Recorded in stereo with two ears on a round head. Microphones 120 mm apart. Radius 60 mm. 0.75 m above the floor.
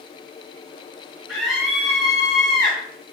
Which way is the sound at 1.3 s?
Centre (ahead or behind).